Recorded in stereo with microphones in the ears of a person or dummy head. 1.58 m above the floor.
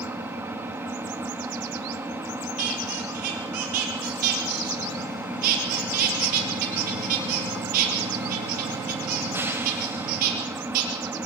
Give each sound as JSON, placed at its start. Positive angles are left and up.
{"t": 0.0, "sound": "an engine running", "side_deg": -15, "distance_m": 2.0}
{"t": 2.6, "sound": "a squeak", "side_deg": -50, "distance_m": 5.0}